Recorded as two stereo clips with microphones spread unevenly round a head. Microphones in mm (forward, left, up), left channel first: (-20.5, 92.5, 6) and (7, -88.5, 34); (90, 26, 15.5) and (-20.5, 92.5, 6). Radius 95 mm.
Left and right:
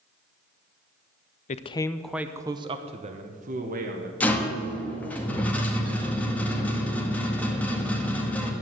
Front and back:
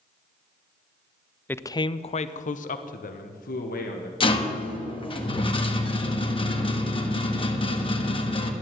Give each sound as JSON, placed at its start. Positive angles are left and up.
{"t": 1.5, "sound": "a man speaking", "azimuth_deg": 45, "distance_m": 0.6}
{"t": 4.2, "sound": "a rattle", "azimuth_deg": 15, "distance_m": 1.6}